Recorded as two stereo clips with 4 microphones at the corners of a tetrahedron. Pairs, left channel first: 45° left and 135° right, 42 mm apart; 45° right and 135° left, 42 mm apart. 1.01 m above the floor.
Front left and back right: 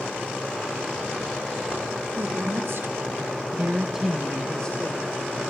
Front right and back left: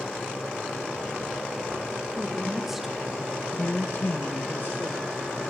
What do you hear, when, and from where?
2.1 s a woman speaking: 150° right, 3 m; by 5.4 s 10° right, 3 m